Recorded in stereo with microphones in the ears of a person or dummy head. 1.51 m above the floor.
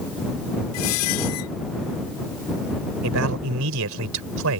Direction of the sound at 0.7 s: 80° left.